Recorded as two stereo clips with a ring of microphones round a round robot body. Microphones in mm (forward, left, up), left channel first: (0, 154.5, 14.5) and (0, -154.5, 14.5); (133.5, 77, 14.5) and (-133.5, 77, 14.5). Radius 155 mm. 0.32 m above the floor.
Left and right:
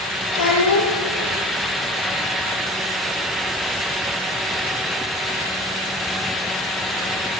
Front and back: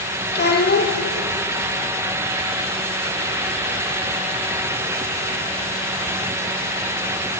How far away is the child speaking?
About 6.5 m.